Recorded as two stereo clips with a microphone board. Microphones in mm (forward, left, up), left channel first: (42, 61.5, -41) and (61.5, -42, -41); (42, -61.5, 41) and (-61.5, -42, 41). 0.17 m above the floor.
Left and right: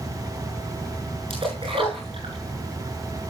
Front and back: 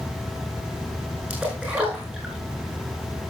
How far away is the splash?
About 8 m.